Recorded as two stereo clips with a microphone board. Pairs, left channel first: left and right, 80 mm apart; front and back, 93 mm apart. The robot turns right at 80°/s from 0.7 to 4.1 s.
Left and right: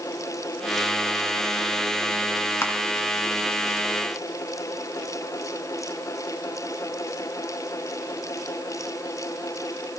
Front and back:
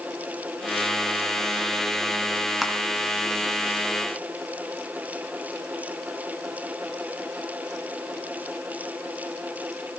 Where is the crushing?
95° left, 1.8 m; by 2.7 s 105° left, 1.8 m.